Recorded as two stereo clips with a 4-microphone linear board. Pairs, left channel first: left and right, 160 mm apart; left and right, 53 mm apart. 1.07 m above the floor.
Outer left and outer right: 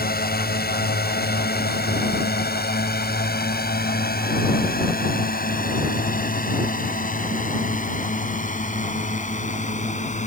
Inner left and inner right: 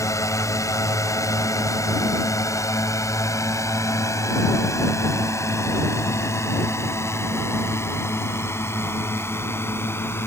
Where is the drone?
75° left (ahead or behind); by 10.3 s 45° left (ahead or behind).